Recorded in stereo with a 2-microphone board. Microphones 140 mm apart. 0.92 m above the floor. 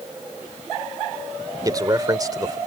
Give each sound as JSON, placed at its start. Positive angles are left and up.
{"t": 1.6, "sound": "a man speaking", "side_deg": -25}